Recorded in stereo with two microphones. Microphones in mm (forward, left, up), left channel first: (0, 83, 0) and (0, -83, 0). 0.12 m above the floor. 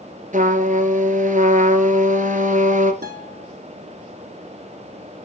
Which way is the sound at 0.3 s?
50° right (ahead or behind).